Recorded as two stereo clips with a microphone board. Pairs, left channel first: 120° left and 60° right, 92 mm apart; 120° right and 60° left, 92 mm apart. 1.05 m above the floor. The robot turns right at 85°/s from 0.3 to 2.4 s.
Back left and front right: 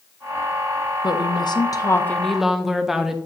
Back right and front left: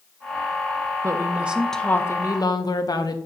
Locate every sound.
1.0 s a woman speaking: 100° left, 0.8 m; by 3.2 s 145° right, 0.8 m